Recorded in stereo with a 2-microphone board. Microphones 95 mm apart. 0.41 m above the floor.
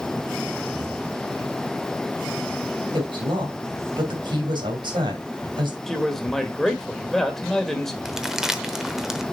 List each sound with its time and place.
2.9 s a woman speaking: 60° right (ahead or behind), 2.5 m
5.9 s a man speaking: 5° left (ahead or behind), 1.6 m
8.1 s crumpling: 5° right (ahead or behind), 0.8 m